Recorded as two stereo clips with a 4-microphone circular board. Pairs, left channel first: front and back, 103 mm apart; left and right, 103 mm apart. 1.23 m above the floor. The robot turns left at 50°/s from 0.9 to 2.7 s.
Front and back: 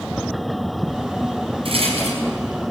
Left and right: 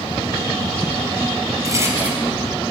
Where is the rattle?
145° right, 5 m; by 2.2 s 175° right, 5 m.